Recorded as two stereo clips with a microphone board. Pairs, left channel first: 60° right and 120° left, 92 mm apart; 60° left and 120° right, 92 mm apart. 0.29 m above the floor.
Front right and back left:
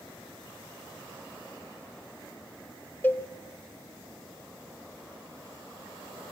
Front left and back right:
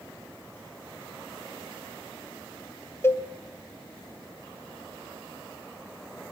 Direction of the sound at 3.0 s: 5° left.